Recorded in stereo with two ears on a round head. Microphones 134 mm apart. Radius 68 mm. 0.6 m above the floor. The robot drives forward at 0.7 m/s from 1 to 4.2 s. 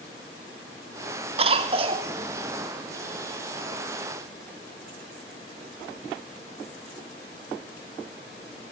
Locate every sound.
1.4 s a cough: 40° right (ahead or behind), 1.5 m; by 2.1 s 35° right (ahead or behind), 1.6 m